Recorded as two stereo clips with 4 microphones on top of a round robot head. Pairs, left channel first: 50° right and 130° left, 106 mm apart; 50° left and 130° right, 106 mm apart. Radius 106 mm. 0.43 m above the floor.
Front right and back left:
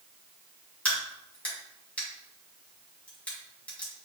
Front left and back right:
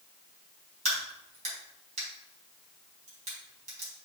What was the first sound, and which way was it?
A crack, 125° right.